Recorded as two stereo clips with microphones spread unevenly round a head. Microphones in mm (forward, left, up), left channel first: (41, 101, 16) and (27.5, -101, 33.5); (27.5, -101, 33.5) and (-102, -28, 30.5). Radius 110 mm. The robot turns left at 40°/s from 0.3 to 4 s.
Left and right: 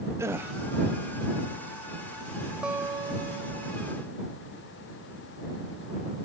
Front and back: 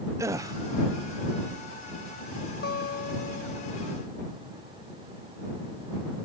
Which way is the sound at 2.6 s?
10° right.